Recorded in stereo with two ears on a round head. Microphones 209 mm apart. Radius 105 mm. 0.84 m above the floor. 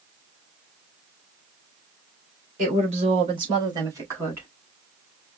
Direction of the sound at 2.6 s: 35° right (ahead or behind).